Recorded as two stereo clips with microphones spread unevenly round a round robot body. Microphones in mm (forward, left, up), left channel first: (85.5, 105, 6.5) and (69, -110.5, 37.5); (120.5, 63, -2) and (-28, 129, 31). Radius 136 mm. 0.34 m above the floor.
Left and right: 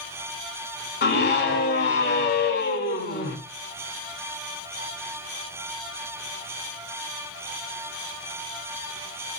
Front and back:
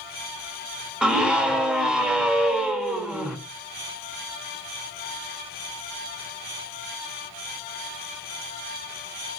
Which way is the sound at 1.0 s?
65° left.